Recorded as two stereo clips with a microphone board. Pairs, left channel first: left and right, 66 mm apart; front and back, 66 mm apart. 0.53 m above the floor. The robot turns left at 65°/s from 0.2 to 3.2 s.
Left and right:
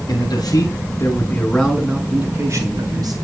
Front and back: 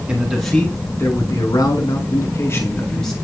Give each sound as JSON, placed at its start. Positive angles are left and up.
{"t": 0.1, "sound": "a man speaking", "azimuth_deg": 105, "distance_m": 6.0}